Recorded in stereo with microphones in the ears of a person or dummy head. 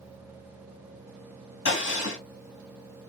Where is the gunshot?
60° left (ahead or behind), 2.5 m.